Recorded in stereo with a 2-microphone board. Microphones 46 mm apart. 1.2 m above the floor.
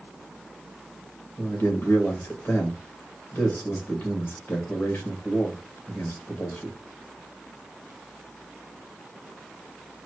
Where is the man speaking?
45° left (ahead or behind), 1.8 m.